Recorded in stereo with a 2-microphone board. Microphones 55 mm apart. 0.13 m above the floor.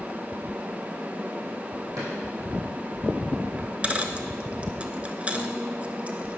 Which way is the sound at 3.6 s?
25° right (ahead or behind).